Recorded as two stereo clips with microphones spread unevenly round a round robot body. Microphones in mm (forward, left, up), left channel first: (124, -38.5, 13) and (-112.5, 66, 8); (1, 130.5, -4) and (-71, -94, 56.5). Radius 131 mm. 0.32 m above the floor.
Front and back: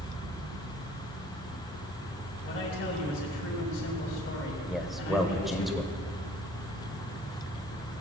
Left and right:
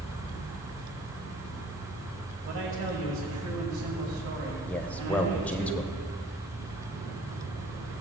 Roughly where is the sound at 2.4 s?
Ahead right.